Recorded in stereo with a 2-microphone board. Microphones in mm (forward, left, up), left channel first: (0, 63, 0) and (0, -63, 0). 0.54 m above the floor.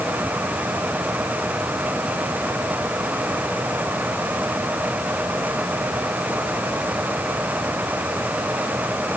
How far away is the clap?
No clap in this recording.